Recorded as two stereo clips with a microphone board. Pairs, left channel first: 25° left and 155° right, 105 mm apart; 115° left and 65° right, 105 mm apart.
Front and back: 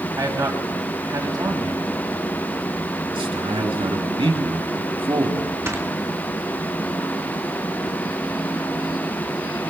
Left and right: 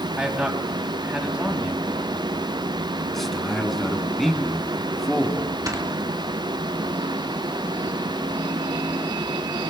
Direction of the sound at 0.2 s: 140° right.